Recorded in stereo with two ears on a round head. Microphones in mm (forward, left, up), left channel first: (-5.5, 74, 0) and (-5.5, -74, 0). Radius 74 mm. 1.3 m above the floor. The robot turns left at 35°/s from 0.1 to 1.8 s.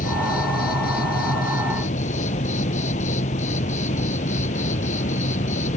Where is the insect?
115° left; by 5.8 s 55° left.